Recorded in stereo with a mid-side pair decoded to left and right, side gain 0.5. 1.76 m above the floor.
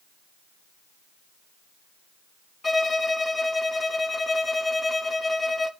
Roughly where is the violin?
Ahead.